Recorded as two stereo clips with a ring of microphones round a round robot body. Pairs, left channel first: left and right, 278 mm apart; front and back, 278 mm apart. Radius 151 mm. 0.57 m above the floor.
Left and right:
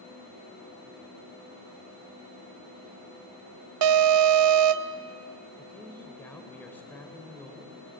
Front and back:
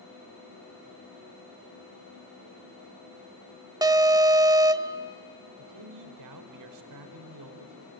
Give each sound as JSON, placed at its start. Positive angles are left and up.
{"t": 3.8, "sound": "an alarm", "azimuth_deg": -105, "distance_m": 0.6}
{"t": 5.6, "sound": "a man speaking", "azimuth_deg": 175, "distance_m": 1.9}